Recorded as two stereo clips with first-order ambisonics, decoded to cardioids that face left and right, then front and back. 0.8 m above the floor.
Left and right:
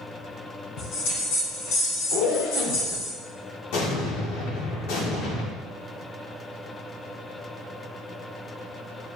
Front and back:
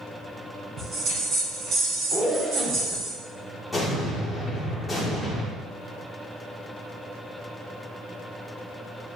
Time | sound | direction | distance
0.8 | a bell | 120° left | 2.5 m
2.1 | a zipper | 90° left | 1.0 m
3.7 | an explosion | 85° left | 1.7 m